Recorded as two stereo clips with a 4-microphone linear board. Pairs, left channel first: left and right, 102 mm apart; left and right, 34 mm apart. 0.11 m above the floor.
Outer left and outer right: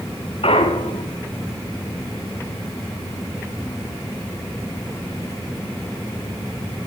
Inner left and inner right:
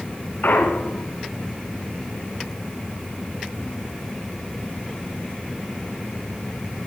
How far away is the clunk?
About 4 m.